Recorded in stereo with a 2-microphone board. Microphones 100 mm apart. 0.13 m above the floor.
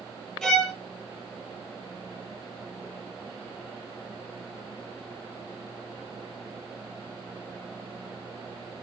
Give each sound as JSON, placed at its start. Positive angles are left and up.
{"t": 0.4, "sound": "a violin", "side_deg": 5, "distance_m": 0.8}